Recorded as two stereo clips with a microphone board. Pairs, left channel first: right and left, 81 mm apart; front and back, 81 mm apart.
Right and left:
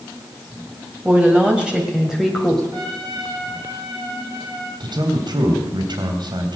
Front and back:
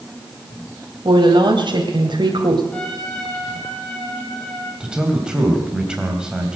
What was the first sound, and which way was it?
A woman speaking, 160° left.